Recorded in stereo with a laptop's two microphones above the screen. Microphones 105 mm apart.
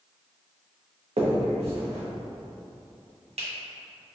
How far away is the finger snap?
About 0.9 m.